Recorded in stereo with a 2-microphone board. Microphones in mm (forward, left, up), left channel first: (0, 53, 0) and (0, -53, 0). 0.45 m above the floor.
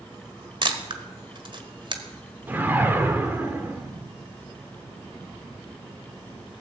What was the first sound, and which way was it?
A camera shutter, 50° right (ahead or behind).